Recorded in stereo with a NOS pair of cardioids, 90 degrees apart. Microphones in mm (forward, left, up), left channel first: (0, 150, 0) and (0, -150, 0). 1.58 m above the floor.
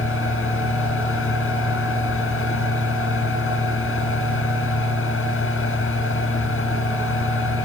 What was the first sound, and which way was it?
A fan, 45° left.